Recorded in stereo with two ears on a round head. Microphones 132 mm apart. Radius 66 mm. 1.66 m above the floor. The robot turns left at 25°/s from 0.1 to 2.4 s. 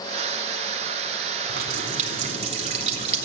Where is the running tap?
70° right (ahead or behind), 4 m; by 3.3 s 45° right (ahead or behind), 4 m.